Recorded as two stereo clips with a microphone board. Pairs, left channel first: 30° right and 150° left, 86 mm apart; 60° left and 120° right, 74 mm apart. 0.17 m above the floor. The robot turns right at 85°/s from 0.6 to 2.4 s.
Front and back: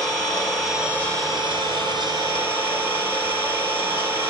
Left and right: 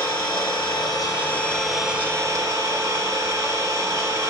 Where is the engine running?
55° left, 4 m; by 4.3 s 155° right, 4 m.